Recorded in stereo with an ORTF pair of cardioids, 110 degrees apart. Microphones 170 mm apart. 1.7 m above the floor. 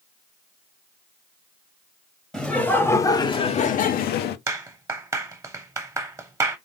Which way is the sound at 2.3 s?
Straight ahead.